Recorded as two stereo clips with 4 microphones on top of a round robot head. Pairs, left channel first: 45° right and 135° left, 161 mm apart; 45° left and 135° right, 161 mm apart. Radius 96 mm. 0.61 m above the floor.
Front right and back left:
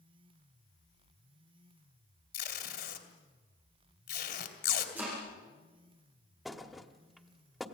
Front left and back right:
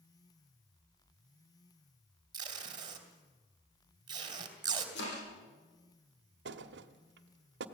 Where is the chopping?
55° left, 8 m.